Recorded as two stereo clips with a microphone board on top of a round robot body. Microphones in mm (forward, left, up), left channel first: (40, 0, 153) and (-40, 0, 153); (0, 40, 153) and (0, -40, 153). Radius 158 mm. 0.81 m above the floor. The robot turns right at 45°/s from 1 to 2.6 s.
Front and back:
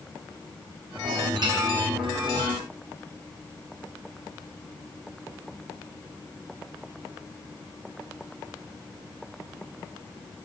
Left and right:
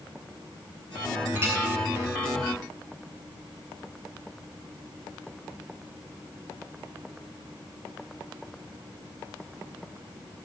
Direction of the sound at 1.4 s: 150° right.